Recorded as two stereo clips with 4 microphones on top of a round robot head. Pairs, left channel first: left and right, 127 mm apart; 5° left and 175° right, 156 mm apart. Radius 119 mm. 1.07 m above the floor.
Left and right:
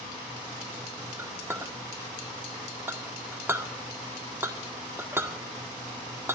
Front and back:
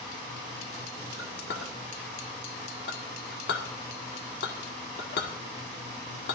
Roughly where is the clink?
Ahead.